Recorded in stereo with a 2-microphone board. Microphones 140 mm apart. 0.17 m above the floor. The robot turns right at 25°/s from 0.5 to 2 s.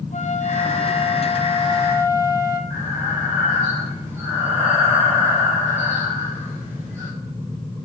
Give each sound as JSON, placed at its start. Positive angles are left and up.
{"t": 0.1, "sound": "a flute", "azimuth_deg": 120, "distance_m": 1.0}
{"t": 2.7, "sound": "breathing", "side_deg": -15, "distance_m": 3.5}